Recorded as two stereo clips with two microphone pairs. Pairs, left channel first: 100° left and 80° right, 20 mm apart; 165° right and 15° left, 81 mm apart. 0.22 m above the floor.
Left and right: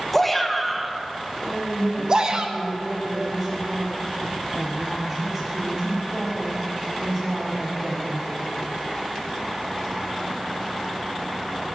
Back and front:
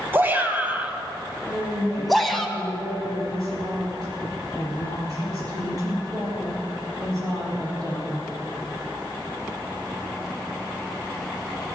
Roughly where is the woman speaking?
Ahead right.